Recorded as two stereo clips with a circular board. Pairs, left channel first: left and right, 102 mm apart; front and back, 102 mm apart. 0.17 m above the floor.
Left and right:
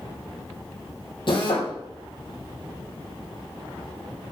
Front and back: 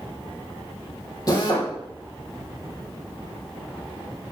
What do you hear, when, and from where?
1.3 s a drill: 50° left, 4 m